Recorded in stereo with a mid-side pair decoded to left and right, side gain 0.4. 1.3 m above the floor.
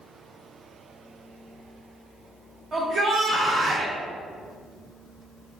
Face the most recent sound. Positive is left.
turn(degrees=-60)